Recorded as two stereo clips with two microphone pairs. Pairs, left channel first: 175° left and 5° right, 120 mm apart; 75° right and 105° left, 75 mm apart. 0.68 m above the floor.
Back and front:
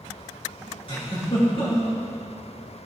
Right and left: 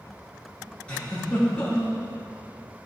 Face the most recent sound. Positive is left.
turn(degrees=-150)